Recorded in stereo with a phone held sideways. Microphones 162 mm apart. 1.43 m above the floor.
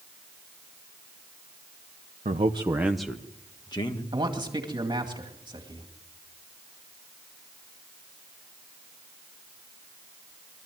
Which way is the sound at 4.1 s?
30° right (ahead or behind).